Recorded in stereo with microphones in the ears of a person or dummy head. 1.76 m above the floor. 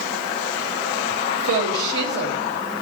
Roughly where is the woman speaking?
Right.